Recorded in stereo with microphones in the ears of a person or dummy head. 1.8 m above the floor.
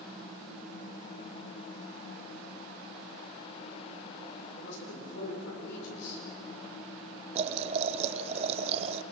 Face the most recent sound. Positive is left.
turn(degrees=-40)  # may be behind; listen again after turning